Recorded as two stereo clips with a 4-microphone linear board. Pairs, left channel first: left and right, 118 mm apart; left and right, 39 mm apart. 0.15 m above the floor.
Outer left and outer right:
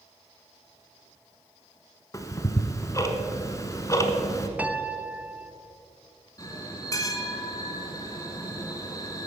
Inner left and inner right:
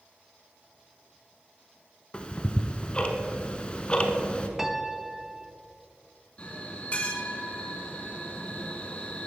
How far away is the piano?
About 0.5 m.